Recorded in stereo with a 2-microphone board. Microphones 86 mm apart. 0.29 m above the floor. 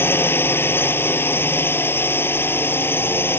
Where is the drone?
25° left (ahead or behind).